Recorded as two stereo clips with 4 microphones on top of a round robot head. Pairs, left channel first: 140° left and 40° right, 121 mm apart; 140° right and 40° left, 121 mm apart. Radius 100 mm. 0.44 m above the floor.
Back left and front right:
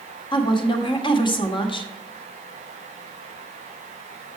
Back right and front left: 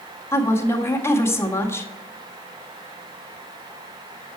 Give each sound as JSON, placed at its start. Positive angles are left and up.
{"t": 0.3, "sound": "a woman speaking", "azimuth_deg": 160, "distance_m": 1.7}